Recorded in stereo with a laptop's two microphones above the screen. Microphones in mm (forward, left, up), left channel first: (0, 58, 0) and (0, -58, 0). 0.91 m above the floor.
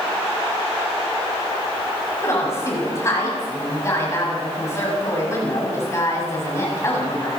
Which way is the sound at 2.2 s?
25° left (ahead or behind).